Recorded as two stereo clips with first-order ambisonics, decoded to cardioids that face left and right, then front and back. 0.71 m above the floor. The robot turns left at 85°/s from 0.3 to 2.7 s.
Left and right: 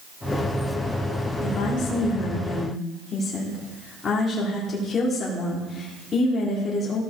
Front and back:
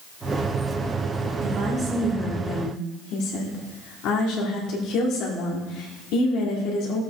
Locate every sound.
1.4 s a woman speaking: 135° left, 1.9 m; by 7.0 s 25° left, 1.9 m